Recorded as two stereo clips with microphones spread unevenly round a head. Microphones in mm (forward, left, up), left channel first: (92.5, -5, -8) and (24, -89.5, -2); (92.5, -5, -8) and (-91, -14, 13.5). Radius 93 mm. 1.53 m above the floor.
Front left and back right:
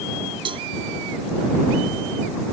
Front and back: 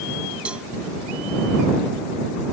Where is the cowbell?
95° right.